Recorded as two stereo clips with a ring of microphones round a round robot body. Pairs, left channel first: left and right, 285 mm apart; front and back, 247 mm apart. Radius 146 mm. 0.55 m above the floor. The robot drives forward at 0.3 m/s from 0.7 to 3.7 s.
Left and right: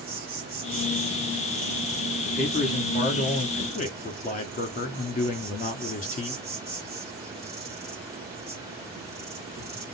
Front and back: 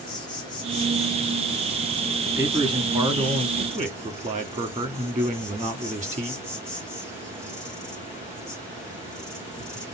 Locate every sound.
0.0 s an insect: 60° right, 1.9 m; by 9.9 s 110° right, 1.9 m
2.2 s a man speaking: 115° left, 1.3 m; by 6.4 s 140° left, 1.4 m